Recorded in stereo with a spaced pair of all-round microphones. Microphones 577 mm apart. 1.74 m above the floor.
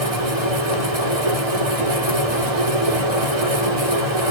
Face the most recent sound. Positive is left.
turn(degrees=-75)  # may be behind; listen again after turning